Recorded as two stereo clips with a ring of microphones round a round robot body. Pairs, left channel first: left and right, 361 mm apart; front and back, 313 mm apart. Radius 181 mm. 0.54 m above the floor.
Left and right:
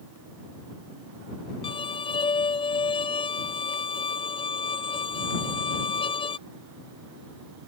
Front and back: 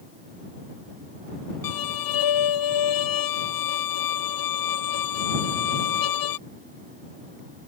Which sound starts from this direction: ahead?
A violin, at 1.6 s.